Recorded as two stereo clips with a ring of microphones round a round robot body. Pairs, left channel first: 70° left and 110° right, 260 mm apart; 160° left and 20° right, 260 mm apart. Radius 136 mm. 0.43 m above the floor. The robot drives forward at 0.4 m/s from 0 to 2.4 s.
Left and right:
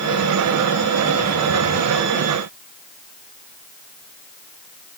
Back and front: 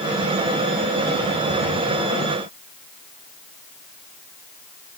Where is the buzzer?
I don't hear a buzzer.